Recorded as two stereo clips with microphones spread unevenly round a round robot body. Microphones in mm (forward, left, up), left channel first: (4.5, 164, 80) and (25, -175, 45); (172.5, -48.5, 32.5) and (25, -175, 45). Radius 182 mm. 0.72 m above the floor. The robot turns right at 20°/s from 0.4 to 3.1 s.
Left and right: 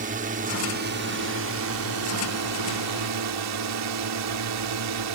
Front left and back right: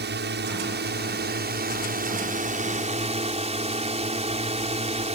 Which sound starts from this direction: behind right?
A drone, at 0.0 s.